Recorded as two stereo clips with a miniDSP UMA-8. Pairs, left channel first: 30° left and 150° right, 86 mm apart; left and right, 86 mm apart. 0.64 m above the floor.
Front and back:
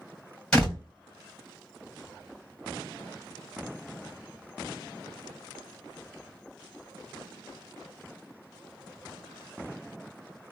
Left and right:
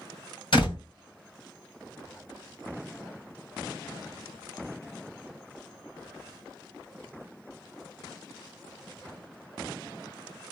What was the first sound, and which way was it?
A door slam, 110° left.